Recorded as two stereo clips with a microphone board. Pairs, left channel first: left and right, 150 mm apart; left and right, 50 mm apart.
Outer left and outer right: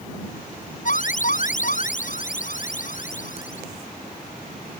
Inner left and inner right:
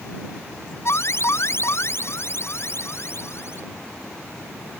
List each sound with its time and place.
0.8 s an alarm: 60° left (ahead or behind)